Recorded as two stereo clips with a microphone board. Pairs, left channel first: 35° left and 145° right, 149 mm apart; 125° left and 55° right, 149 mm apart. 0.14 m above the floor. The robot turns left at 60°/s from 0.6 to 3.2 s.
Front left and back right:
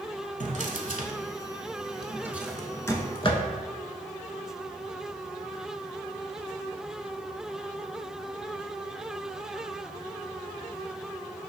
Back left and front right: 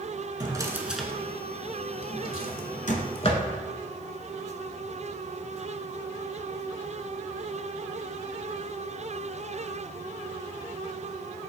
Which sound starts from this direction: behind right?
A drawer, at 0.4 s.